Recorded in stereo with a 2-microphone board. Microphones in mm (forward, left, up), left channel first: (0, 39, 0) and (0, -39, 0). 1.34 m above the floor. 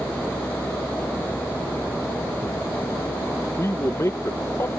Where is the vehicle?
40° left (ahead or behind); by 4.8 s 80° left.